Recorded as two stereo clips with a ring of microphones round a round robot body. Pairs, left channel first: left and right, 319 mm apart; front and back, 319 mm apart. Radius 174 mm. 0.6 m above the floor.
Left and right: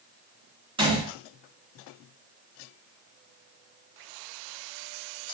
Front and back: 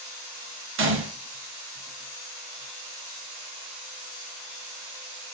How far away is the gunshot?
About 1.0 m.